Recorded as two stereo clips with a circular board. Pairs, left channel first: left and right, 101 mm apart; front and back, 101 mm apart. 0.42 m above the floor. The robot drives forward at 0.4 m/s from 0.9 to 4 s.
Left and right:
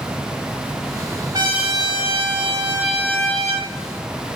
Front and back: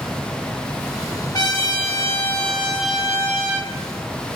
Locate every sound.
1.3 s a trumpet: 45° right, 0.9 m; by 3.7 s 120° right, 0.8 m